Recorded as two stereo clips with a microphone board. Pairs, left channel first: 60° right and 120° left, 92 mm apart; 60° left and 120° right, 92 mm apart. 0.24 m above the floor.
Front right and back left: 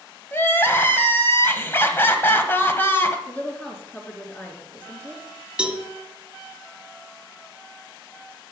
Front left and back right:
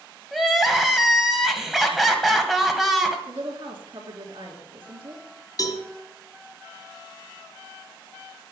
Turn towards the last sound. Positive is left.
turn(degrees=45)